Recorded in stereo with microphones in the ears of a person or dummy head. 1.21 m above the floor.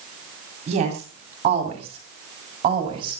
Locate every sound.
0.7 s a woman speaking: 40° right (ahead or behind), 7 m; by 3.2 s 30° right (ahead or behind), 6 m